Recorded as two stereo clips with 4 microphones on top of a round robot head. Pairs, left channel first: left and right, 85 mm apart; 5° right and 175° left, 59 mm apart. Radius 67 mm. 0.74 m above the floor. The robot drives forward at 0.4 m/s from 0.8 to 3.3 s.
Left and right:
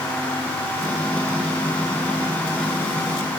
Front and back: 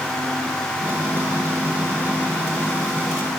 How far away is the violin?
I don't hear a violin.